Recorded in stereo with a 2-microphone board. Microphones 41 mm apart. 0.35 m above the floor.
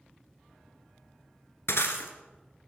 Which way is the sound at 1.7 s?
80° left.